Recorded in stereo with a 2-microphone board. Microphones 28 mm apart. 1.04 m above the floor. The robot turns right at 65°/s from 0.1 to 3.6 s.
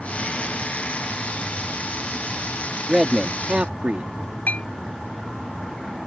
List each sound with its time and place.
2.9 s a man speaking: 170° right; by 4.1 s 125° right
4.5 s a clink: 60° left (ahead or behind)